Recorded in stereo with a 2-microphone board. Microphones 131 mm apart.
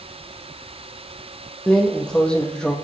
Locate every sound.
1.7 s a drawer: 5° left (ahead or behind), 1.8 m